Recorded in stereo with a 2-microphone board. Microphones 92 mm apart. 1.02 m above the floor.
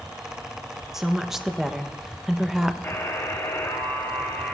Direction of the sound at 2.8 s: 30° left (ahead or behind).